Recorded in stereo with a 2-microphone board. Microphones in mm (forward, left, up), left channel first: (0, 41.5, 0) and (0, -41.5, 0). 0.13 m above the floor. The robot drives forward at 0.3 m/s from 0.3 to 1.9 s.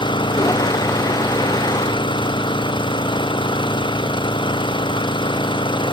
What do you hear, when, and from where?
0.0 s an engine running: 70° left (ahead or behind)